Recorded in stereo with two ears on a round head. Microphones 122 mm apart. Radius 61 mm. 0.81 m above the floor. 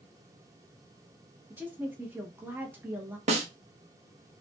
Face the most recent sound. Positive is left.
turn(degrees=-50)  # may be behind; listen again after turning